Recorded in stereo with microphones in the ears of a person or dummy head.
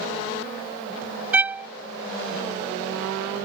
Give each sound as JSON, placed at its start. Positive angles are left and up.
{"t": 1.3, "sound": "a violin", "side_deg": -10}